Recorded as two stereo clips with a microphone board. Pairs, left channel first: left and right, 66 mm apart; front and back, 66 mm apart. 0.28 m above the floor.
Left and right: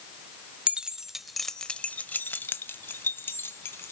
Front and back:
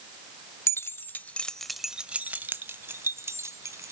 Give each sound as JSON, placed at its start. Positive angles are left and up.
{"t": 0.7, "sound": "keys jangling", "azimuth_deg": -25, "distance_m": 0.8}